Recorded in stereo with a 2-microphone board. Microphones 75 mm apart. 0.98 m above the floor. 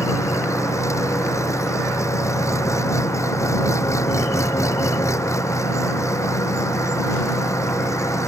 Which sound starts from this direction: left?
An engine running, at 0.0 s.